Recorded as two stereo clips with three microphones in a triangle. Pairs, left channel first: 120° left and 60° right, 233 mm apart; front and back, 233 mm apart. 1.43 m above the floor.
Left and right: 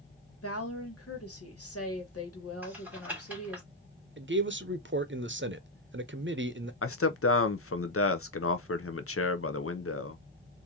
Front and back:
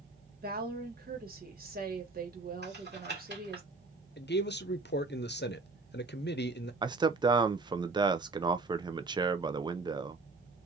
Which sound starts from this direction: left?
A man speaking, at 6.8 s.